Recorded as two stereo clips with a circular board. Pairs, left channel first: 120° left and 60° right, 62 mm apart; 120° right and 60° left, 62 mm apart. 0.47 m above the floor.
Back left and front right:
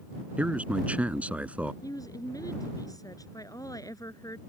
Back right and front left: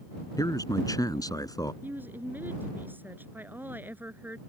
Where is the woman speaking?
120° left.